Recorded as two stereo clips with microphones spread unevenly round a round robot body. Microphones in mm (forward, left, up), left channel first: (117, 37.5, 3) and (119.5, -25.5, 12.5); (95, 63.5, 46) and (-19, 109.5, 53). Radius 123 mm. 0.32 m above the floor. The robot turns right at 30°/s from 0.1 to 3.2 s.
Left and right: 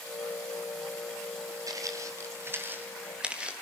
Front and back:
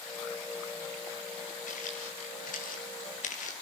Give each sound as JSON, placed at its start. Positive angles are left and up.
{"t": 1.7, "sound": "footsteps", "azimuth_deg": -60, "distance_m": 5.5}